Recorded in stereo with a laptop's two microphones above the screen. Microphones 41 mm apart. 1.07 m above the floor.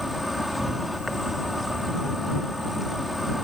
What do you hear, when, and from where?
0.0 s an insect: centre (ahead or behind)